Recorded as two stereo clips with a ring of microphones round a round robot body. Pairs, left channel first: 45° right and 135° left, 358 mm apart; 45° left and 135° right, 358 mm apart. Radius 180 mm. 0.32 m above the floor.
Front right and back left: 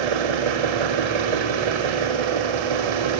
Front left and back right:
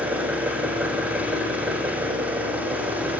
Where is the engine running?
140° left, 6.5 m.